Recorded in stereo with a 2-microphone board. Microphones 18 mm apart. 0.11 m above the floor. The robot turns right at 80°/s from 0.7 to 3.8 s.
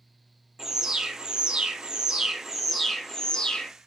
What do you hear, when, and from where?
0.6 s an alarm: 150° right, 2.5 m; by 3.7 s 90° left, 2.5 m